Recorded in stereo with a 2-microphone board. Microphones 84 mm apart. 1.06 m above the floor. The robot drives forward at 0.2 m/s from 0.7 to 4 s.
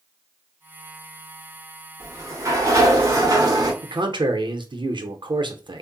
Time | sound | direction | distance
2.0 | a sliding door | 35° right (ahead or behind) | 0.9 m
3.8 | a man speaking | 65° right (ahead or behind) | 0.6 m